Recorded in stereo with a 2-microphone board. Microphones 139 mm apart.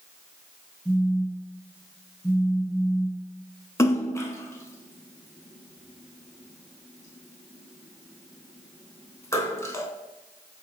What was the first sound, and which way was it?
A phone buzzing, 10° right (ahead or behind).